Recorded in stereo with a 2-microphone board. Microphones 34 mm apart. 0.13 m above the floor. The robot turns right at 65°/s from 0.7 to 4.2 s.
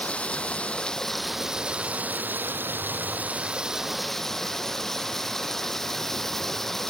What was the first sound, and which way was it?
Running water, 145° left.